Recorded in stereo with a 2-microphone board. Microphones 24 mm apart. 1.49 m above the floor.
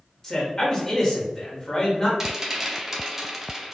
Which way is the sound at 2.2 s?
20° right (ahead or behind).